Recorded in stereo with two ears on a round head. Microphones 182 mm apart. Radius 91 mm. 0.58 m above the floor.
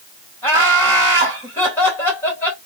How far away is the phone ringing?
I don't hear a phone ringing.